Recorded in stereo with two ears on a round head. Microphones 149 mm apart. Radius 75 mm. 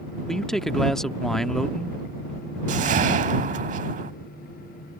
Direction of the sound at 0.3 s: Centre (ahead or behind).